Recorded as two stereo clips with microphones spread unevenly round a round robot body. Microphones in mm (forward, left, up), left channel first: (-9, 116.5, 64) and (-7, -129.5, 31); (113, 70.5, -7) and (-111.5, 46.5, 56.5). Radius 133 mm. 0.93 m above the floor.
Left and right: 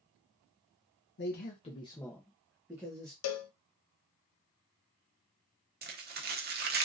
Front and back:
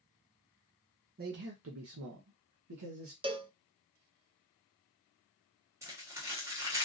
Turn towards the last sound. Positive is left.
turn(degrees=-85)